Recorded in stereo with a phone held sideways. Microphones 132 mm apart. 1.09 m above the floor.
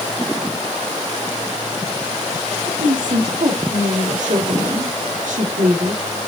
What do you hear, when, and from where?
2.7 s a woman speaking: 70° right (ahead or behind), 2.5 m